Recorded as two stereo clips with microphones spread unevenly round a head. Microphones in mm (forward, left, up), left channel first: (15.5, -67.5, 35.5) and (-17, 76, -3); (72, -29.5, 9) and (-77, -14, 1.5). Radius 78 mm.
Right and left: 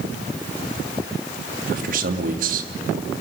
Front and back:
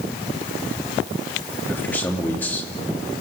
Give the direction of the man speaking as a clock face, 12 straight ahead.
10 o'clock.